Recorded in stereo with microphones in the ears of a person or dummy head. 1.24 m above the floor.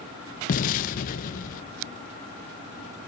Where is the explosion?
50° left (ahead or behind), 1.4 m.